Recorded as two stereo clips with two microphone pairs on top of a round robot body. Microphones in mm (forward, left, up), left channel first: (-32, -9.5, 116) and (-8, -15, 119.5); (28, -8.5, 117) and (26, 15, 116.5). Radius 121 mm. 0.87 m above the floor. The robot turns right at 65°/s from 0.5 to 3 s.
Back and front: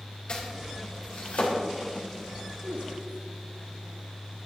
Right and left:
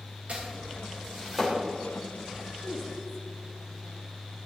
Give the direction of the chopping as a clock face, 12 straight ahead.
8 o'clock.